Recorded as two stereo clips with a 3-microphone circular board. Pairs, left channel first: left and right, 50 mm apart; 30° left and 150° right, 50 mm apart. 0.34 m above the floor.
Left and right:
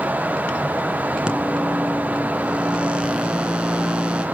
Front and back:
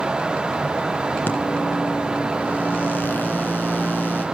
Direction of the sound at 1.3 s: 20° right.